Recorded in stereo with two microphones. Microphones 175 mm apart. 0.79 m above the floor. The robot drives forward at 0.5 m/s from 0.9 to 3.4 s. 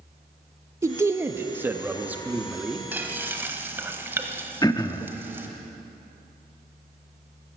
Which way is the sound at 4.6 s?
25° left (ahead or behind).